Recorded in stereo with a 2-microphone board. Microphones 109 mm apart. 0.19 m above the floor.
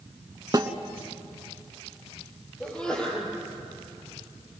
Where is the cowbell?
I don't hear a cowbell.